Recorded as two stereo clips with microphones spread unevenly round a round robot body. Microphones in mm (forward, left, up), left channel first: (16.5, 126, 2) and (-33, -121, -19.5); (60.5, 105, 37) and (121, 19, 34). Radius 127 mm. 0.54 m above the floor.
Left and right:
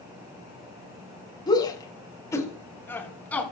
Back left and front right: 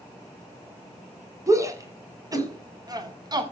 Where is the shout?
5° left, 5.5 m; by 3.4 s 5° right, 6 m.